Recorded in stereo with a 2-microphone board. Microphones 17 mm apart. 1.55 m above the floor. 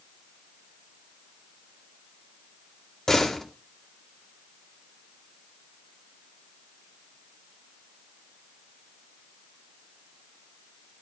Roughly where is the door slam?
Left.